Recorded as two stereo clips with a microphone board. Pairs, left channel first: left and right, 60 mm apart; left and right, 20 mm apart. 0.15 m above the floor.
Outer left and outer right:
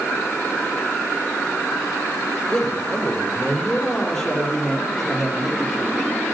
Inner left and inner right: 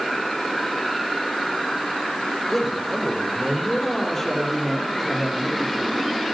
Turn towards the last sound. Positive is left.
turn(degrees=-5)  # may be behind; listen again after turning